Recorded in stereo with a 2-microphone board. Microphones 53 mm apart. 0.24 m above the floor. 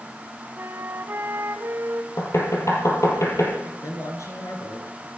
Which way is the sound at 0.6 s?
50° right (ahead or behind).